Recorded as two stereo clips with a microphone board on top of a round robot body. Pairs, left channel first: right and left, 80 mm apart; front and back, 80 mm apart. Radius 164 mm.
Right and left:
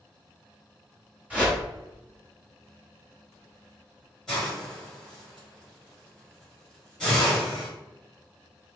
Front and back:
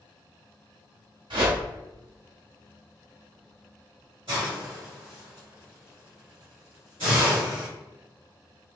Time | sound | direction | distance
1.3 | a whoosh | 165° left | 1.6 m
4.3 | a hiss | 170° right | 0.6 m